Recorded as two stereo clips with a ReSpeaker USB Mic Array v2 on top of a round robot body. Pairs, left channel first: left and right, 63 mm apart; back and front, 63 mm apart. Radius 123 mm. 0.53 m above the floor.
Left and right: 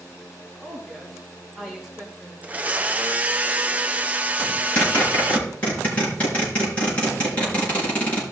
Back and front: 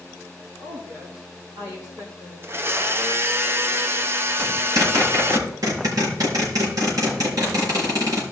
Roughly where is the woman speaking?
Ahead.